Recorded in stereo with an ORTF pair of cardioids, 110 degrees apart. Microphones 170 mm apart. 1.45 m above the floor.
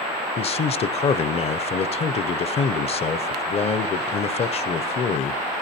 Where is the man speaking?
35° left, 0.7 m.